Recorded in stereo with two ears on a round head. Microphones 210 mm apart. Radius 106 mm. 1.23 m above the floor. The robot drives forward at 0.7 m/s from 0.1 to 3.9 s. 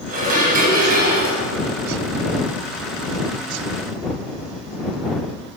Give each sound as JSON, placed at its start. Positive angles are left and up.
{"t": 0.1, "sound": "dishes clattering", "side_deg": -35, "distance_m": 6.5}